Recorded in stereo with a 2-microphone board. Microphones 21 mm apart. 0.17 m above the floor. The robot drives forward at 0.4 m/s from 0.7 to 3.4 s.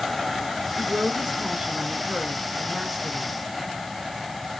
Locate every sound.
0.8 s a woman speaking: 45° right (ahead or behind), 2.0 m; by 3.3 s 40° right (ahead or behind), 2.5 m